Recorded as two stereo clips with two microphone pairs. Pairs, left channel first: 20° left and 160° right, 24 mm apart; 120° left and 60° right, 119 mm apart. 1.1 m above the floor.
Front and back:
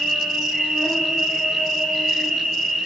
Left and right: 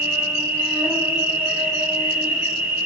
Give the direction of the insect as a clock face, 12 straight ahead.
4 o'clock.